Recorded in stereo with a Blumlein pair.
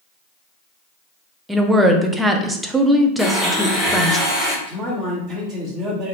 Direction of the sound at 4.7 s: 25° right.